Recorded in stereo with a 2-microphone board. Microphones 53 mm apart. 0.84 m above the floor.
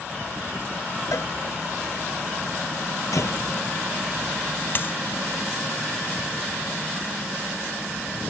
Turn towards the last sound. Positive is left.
turn(degrees=45)  # may be behind; listen again after turning